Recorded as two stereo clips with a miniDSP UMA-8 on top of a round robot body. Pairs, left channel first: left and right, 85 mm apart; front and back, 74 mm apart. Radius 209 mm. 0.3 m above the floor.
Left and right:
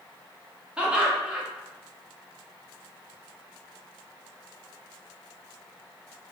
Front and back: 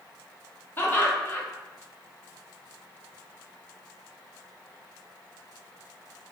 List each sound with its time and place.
0.8 s laughter: 25° right, 1.1 m